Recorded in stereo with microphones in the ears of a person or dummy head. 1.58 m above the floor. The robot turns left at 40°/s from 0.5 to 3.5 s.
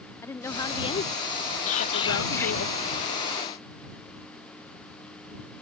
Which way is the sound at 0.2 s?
165° left.